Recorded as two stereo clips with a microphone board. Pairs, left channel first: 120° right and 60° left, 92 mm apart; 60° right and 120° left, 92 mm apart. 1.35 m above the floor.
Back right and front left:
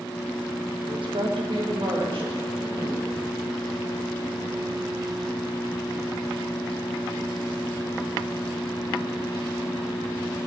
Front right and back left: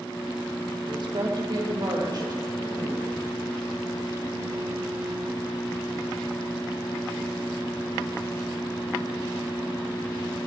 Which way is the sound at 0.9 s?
85° left.